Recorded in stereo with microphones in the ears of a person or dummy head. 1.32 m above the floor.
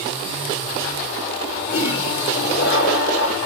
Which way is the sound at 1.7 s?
70° left (ahead or behind).